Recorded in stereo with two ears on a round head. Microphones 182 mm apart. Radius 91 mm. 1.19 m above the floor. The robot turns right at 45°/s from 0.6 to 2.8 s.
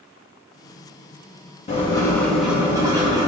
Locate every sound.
1.7 s writing: 150° left, 1.8 m; by 3.3 s 160° right, 1.8 m